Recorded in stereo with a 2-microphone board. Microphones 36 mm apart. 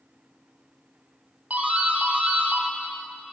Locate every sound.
1.5 s a doorbell: 45° right (ahead or behind), 1.9 m